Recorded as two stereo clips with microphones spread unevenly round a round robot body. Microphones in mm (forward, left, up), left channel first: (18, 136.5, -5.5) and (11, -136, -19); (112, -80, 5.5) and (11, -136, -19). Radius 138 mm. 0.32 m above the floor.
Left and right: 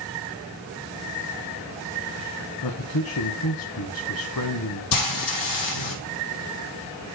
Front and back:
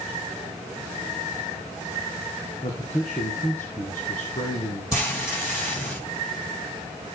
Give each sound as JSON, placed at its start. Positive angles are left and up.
{"t": 2.6, "sound": "a man speaking", "azimuth_deg": 90, "distance_m": 2.0}
{"t": 4.9, "sound": "frying", "azimuth_deg": 110, "distance_m": 4.5}